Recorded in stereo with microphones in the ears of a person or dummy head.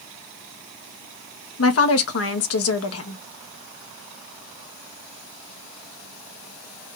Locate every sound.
1.6 s a woman speaking: 70° left (ahead or behind), 1.1 m